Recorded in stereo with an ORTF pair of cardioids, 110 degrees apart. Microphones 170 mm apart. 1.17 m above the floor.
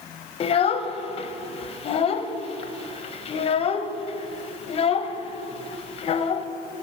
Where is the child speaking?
35° left, 0.6 m.